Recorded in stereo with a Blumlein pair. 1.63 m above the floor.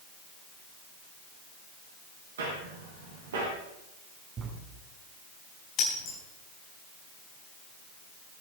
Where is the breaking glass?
40° left, 4.5 m.